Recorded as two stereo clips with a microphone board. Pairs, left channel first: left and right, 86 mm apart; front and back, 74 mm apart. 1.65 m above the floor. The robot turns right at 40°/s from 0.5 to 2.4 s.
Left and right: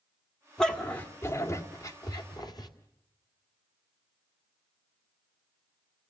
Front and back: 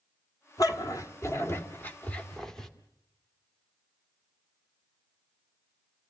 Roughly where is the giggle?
I don't hear a giggle.